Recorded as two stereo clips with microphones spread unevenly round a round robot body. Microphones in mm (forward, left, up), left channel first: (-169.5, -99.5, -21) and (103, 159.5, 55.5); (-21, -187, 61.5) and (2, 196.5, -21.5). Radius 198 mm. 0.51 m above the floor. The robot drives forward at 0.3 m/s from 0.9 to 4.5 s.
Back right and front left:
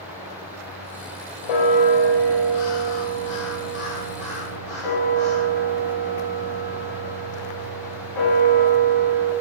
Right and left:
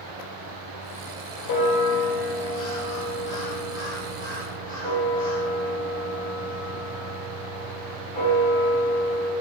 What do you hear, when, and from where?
1.4 s a bell: 140° right, 0.7 m; by 9.3 s 160° right, 1.5 m